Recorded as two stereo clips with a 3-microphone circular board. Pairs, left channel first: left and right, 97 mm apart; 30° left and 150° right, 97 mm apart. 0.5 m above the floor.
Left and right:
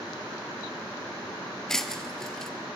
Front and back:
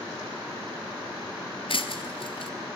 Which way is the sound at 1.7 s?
5° left.